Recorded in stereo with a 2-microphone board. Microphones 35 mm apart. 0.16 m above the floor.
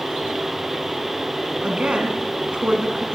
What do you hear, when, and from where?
1.6 s a woman speaking: 30° right (ahead or behind), 1.4 m